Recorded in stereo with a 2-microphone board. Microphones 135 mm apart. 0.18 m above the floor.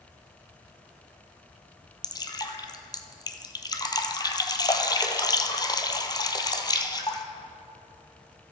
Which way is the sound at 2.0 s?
30° left (ahead or behind).